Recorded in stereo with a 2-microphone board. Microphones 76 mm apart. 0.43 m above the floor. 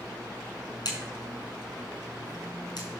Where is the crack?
60° left (ahead or behind), 5 m.